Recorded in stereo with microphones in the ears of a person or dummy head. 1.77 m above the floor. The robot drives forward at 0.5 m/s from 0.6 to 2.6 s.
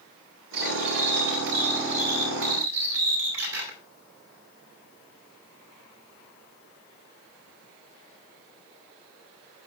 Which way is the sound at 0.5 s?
75° right (ahead or behind).